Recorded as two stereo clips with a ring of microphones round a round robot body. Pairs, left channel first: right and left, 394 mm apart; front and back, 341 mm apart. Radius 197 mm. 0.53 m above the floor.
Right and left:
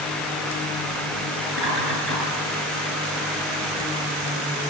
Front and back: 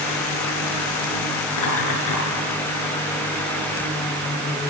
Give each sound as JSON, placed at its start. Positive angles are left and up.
{"t": 1.5, "sound": "laughter", "azimuth_deg": 30, "distance_m": 9.0}